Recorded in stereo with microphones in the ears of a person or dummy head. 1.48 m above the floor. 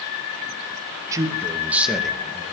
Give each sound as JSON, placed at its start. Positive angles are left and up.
{"t": 1.1, "sound": "a man speaking", "side_deg": -15, "distance_m": 2.5}